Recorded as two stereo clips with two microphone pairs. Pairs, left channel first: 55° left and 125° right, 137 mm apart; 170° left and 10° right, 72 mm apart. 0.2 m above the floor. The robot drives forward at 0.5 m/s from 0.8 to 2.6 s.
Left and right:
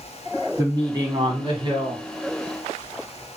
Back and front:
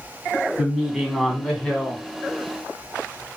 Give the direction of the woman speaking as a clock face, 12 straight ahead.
3 o'clock.